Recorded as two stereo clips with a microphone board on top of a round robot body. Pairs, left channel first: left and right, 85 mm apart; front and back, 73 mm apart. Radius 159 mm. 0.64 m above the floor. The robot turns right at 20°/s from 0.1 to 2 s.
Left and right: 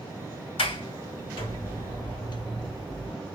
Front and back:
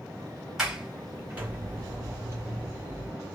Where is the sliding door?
95° left, 1.5 m; by 3.1 s 120° left, 1.5 m.